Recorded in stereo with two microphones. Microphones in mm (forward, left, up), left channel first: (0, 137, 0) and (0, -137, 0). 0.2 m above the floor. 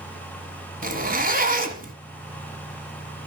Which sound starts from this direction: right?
A zipper, at 0.8 s.